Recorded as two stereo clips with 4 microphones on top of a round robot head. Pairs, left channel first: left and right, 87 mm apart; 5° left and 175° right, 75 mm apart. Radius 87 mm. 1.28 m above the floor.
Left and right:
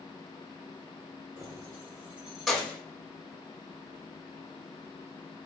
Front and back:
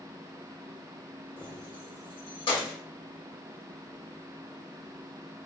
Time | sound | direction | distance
1.4 | keys jangling | 40° right | 1.6 m